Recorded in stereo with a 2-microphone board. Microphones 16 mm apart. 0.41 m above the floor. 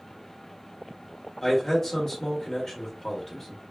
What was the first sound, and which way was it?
A man speaking, 25° left (ahead or behind).